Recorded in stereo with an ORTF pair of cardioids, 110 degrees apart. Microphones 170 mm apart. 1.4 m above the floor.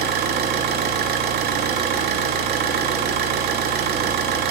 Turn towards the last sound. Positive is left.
turn(degrees=-70)